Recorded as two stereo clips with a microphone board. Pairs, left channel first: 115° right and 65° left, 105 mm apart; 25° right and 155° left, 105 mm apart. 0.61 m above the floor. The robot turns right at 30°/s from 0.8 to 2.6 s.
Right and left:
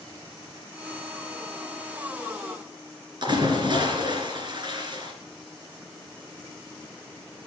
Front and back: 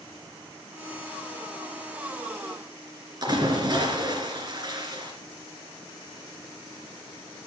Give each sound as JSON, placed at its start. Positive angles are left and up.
{"t": 3.2, "sound": "a splash", "azimuth_deg": 110, "distance_m": 2.5}